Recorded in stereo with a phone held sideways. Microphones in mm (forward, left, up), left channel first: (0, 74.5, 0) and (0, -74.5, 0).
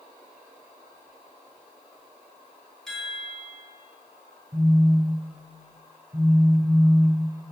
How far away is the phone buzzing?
About 2 m.